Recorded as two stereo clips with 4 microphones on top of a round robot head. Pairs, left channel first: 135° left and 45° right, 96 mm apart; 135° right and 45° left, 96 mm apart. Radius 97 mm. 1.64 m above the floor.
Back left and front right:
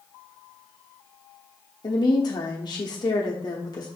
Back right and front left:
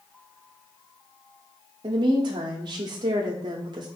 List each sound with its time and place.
1.8 s a woman speaking: 85° left, 0.8 m